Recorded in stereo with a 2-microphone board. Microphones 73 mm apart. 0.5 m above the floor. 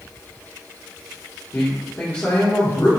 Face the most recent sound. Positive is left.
turn(degrees=30)  # may be behind; listen again after turning